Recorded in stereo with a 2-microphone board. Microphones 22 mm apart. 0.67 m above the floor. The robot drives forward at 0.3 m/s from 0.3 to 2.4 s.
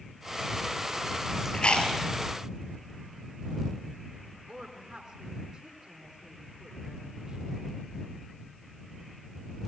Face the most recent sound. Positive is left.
turn(degrees=-15)  # may be behind; listen again after turning